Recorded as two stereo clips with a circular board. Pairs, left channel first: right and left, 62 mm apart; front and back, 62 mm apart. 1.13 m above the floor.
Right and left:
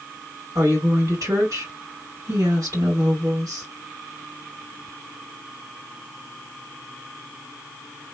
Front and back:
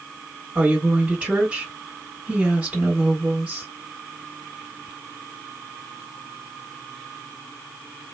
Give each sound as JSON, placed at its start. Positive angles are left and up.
{"t": 0.6, "sound": "a woman speaking", "azimuth_deg": 105, "distance_m": 1.9}